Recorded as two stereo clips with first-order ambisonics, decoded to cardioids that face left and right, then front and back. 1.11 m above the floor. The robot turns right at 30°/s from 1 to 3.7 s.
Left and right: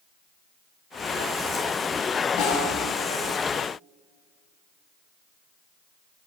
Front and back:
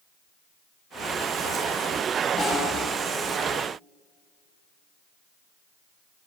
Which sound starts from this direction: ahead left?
A snare drum, at 2.4 s.